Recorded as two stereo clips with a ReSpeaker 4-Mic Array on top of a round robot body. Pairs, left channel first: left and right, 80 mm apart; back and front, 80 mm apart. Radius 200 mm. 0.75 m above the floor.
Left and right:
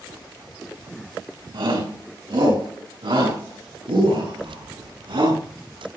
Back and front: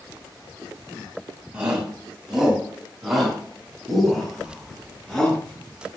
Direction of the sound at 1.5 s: 80° right.